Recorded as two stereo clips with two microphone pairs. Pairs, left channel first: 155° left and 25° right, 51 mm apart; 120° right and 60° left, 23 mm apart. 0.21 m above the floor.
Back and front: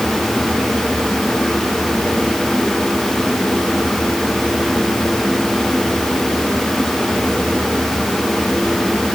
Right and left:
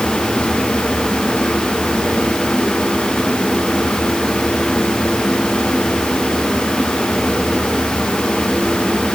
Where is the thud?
I don't hear a thud.